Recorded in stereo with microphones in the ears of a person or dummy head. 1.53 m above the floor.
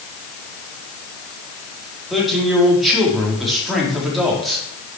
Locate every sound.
2.1 s a man speaking: centre (ahead or behind), 4 m